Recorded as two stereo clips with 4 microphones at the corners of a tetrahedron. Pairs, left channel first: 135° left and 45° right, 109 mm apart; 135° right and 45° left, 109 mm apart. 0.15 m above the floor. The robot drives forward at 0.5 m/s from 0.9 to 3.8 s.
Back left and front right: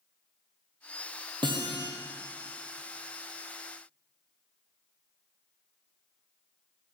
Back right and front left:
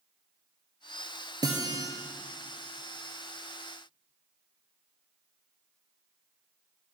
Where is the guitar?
5° right, 1.3 m.